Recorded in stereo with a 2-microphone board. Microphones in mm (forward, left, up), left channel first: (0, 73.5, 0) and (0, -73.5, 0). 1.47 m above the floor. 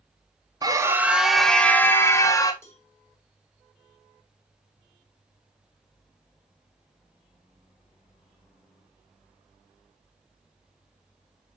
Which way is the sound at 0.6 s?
25° right (ahead or behind).